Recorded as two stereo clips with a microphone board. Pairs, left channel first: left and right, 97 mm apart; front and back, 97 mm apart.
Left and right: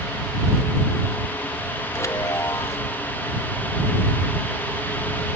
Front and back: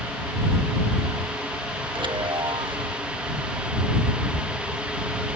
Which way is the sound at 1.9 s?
145° left.